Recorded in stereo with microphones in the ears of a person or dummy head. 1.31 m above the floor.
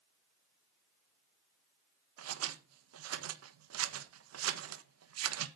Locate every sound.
2.2 s scissors: 85° right, 1.2 m